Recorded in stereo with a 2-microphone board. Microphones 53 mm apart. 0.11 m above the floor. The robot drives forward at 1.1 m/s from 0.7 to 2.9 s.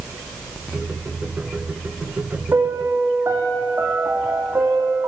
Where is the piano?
55° right (ahead or behind), 2.5 m; by 5.1 s 65° right (ahead or behind), 2.5 m.